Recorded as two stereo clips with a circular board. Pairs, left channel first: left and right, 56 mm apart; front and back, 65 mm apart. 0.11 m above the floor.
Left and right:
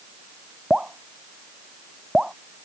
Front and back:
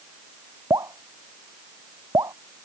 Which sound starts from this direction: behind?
Dripping, at 0.7 s.